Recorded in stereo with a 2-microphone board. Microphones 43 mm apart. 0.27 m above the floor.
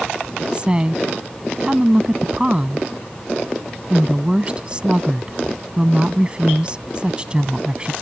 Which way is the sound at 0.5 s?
25° right (ahead or behind).